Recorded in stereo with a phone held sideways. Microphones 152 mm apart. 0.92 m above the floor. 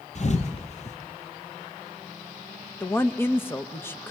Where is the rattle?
No rattle in this recording.